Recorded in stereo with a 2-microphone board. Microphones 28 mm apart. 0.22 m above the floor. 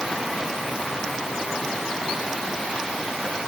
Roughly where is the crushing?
No crushing in this recording.